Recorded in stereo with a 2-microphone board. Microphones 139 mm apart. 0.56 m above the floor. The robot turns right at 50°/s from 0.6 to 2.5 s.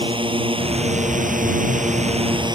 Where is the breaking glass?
No breaking glass in this recording.